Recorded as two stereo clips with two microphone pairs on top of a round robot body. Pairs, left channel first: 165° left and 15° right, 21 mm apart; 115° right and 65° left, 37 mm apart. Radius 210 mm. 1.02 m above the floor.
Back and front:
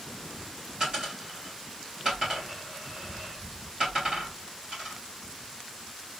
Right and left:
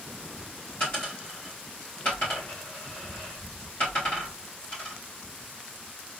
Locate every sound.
0.8 s a dropped coin: 85° right, 1.2 m